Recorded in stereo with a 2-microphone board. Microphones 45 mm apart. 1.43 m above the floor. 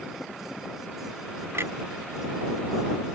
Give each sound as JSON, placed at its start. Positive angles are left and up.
{"t": 1.5, "sound": "a clunk", "side_deg": -70}